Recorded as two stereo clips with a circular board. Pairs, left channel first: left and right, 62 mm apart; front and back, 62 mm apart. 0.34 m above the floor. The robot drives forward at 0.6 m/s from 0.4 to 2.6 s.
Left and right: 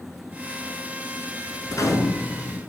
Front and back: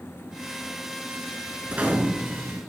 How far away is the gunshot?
About 0.9 m.